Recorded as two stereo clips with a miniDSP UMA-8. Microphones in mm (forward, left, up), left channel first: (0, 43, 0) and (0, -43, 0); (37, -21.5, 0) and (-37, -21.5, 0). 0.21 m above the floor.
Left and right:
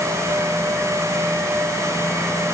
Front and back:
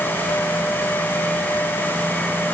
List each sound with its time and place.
Only background noise.